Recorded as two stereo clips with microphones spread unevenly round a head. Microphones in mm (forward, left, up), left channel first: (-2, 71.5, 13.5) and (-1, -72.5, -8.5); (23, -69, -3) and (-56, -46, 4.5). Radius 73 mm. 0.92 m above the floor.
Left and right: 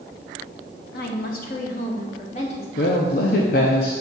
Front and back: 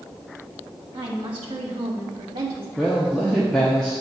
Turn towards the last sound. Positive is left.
turn(degrees=65)